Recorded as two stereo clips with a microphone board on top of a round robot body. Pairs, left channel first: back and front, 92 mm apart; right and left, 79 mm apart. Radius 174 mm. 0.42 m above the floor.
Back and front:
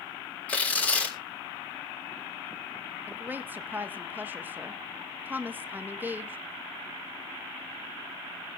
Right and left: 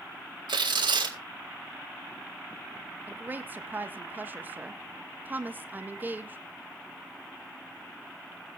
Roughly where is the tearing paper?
Left.